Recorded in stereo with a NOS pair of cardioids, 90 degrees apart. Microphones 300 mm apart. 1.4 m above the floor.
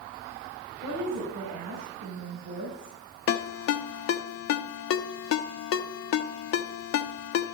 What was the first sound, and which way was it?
A woman speaking, 65° right.